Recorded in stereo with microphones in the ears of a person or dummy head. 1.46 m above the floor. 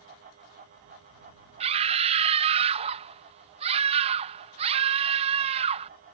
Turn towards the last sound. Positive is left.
turn(degrees=-30)  # may be behind; listen again after turning